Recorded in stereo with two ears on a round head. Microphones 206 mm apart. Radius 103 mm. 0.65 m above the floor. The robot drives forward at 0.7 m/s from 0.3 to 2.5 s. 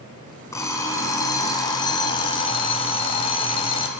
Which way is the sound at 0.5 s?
15° left (ahead or behind).